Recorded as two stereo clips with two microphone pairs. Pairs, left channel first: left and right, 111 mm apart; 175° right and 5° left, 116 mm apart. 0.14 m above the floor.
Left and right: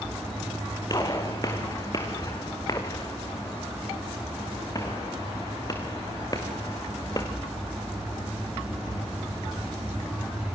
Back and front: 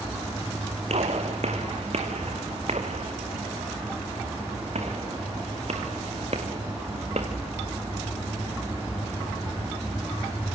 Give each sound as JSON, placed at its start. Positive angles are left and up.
{"t": 0.9, "sound": "a gunshot", "azimuth_deg": 30, "distance_m": 4.0}